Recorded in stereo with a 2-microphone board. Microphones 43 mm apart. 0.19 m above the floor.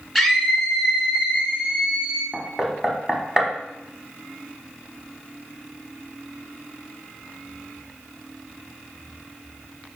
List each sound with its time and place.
0.1 s a scream: 5° right (ahead or behind), 2.5 m; by 2.2 s 30° right (ahead or behind), 2 m
2.3 s knocking: 10° right (ahead or behind), 1.1 m